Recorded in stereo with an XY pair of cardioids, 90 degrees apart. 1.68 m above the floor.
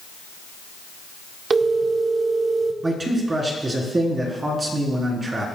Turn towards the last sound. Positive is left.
turn(degrees=-30)